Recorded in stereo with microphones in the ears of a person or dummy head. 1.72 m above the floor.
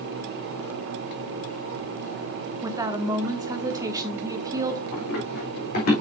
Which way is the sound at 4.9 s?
45° left (ahead or behind).